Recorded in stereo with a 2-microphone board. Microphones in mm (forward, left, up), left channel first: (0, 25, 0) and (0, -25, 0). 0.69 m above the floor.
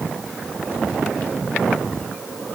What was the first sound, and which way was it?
Only background noise.